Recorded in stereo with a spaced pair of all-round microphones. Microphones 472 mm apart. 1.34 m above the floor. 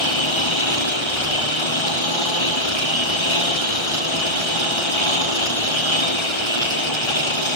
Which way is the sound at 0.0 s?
75° left (ahead or behind).